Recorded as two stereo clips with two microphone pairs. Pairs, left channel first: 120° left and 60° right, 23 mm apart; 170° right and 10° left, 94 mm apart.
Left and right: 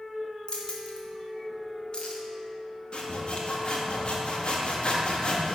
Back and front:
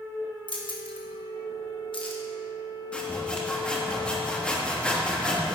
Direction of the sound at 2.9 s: 115° left.